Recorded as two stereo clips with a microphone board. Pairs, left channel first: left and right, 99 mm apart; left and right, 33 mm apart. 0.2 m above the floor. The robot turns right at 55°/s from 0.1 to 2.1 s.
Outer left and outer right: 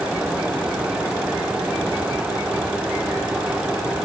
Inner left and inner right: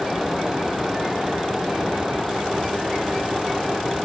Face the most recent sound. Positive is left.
No sound to turn to.